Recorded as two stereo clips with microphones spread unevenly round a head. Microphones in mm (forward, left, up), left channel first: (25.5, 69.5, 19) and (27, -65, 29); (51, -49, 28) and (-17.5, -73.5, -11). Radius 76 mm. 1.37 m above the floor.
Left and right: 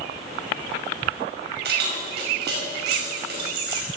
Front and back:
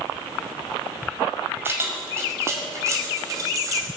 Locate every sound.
1.6 s keys jangling: 95° right, 5.5 m; by 3.9 s 115° right, 5 m